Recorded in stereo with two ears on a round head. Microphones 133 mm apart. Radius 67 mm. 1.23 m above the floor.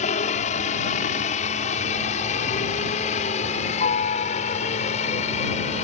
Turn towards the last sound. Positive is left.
turn(degrees=50)  # may be behind; listen again after turning